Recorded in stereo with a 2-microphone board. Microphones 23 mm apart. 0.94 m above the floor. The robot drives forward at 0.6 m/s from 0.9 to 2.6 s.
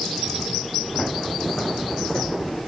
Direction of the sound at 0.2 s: 30° left (ahead or behind).